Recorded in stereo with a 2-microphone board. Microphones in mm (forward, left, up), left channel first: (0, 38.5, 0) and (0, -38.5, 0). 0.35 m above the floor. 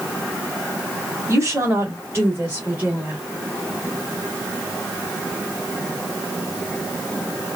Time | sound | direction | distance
1.3 | a woman speaking | 35° right (ahead or behind) | 1.7 m